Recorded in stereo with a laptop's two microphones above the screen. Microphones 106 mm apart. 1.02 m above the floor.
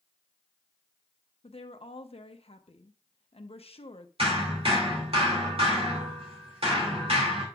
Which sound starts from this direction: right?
Hammering, at 4.2 s.